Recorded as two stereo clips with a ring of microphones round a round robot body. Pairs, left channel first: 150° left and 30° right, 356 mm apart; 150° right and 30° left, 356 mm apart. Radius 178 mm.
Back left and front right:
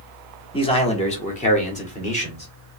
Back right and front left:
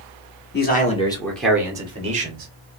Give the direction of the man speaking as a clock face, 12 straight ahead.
5 o'clock.